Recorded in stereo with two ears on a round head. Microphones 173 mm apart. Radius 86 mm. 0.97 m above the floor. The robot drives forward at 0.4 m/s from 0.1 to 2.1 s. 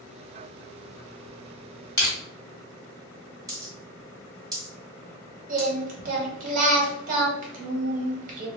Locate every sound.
2.0 s crushing: 15° left (ahead or behind), 1.5 m
3.5 s a dropped coin: 20° right (ahead or behind), 1.5 m
5.5 s singing: 45° right (ahead or behind), 0.7 m